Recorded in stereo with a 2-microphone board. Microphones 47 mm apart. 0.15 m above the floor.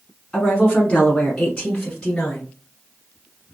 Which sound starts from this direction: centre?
A woman speaking, at 0.3 s.